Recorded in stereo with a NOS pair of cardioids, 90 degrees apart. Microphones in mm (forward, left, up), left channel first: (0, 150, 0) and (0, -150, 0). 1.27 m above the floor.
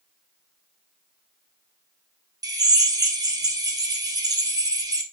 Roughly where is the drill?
Ahead.